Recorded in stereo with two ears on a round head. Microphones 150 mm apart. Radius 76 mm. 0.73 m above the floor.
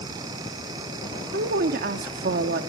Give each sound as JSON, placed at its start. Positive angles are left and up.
{"t": 1.3, "sound": "a woman speaking", "side_deg": -55, "distance_m": 1.5}